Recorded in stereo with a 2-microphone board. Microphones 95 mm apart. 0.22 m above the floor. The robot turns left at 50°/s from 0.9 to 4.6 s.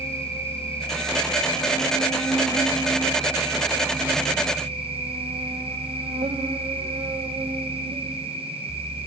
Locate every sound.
0.0 s an insect: 90° left, 1.7 m; by 9.1 s 95° right, 1.7 m